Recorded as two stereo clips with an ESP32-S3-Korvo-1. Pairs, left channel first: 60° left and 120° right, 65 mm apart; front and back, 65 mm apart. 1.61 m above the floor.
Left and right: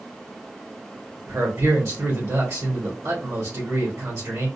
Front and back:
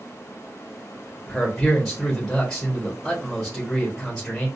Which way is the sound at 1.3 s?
85° right.